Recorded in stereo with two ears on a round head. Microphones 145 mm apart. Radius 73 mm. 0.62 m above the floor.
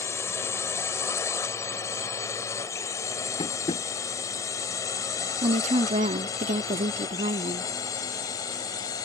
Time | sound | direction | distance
0.0 | a drone | 15° left (ahead or behind) | ?
3.4 | tapping | 30° left (ahead or behind) | ?
5.4 | a woman speaking | 40° right (ahead or behind) | ?